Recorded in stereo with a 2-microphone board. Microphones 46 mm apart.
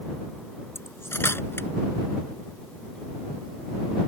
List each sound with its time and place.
0.8 s cutlery clinking: 60° left (ahead or behind)